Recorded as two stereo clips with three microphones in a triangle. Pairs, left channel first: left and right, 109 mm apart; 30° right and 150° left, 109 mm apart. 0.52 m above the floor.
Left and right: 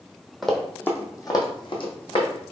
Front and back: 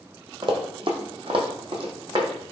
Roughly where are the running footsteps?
Behind.